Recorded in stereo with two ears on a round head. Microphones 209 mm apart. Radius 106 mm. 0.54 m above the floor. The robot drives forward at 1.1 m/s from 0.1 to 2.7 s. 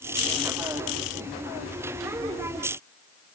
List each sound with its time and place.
Only background noise.